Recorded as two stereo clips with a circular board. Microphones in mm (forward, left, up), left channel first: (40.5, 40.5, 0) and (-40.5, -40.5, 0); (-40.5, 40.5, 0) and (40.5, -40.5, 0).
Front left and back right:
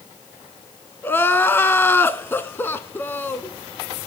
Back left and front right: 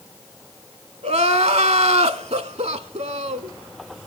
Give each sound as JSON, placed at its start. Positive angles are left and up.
{"t": 1.0, "sound": "crying", "azimuth_deg": -25, "distance_m": 0.5}